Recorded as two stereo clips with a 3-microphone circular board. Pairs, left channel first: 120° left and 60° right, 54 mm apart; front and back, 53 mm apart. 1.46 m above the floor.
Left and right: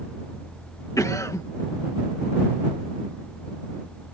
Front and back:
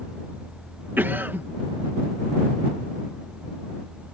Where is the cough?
130° left.